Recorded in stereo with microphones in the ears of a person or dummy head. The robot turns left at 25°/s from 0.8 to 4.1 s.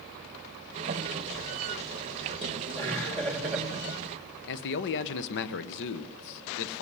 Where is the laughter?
10° left, 3.5 m; by 4.4 s 20° right, 3.5 m.